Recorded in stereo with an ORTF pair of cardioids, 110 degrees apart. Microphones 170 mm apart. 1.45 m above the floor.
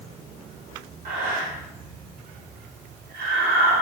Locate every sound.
1.1 s breathing: 60° right, 1.8 m